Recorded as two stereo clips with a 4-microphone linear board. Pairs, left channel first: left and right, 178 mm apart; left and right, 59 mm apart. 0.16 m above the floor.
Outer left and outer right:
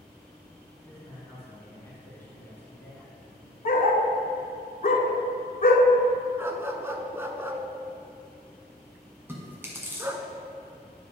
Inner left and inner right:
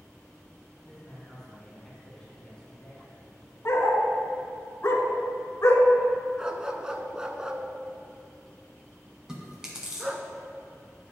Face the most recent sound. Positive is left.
turn(degrees=-15)  # may be behind; listen again after turning